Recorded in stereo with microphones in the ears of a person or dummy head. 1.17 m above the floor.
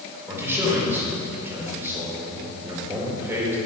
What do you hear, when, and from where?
0.3 s a man speaking: 15° right (ahead or behind), 4.5 m